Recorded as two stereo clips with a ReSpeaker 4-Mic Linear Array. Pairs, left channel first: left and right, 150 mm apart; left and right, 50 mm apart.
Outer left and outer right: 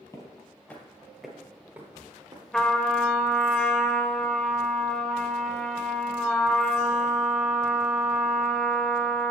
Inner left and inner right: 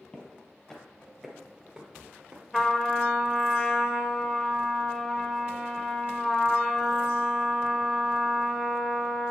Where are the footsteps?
20° left (ahead or behind), 1.8 m; by 2.4 s 30° right (ahead or behind), 1.6 m.